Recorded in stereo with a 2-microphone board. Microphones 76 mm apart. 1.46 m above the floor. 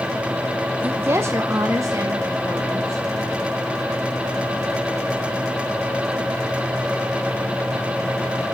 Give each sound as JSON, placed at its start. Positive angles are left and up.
{"t": 0.8, "sound": "a woman speaking", "side_deg": -25, "distance_m": 0.6}